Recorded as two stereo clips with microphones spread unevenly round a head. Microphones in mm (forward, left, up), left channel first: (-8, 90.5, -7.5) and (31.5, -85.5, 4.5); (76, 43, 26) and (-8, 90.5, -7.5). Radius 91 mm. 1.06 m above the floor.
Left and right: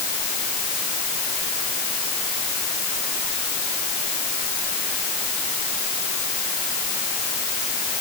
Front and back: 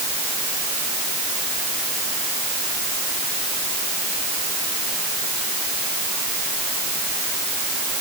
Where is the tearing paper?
No tearing paper in this recording.